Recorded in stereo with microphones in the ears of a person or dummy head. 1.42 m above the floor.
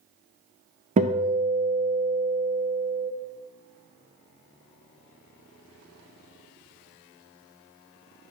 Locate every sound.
1.0 s a guitar: 30° right (ahead or behind), 0.5 m